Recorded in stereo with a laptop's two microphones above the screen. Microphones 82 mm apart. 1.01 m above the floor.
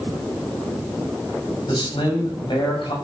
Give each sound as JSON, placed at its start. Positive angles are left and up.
{"t": 1.7, "sound": "a man speaking", "side_deg": 65, "distance_m": 6.5}